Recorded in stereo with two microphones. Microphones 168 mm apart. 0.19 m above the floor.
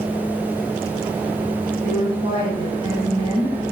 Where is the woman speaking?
30° right (ahead or behind), 1.3 m.